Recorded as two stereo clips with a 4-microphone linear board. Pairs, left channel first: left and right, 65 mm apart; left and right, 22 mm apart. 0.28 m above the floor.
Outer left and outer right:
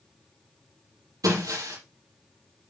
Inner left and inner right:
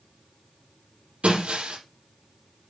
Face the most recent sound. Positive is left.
turn(degrees=-80)